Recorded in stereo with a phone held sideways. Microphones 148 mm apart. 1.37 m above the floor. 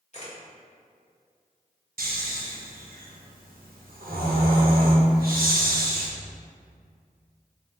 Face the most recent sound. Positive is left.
turn(degrees=-85)